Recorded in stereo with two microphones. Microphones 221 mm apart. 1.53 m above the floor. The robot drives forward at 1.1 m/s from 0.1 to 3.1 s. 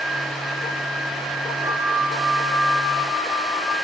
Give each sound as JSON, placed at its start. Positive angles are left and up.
{"t": 1.6, "sound": "a flute", "side_deg": 0, "distance_m": 3.5}